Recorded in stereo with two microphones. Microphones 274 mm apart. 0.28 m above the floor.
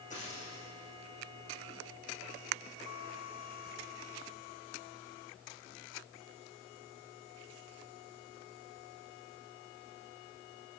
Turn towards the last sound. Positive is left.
turn(degrees=25)  # may be behind; listen again after turning